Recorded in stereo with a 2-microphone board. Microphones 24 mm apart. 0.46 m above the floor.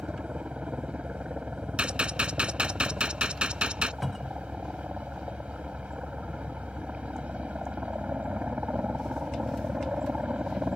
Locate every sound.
0.0 s a helicopter: 60° right (ahead or behind)
1.8 s a gunshot: 45° right (ahead or behind)
4.0 s a cupboard door: 5° right (ahead or behind)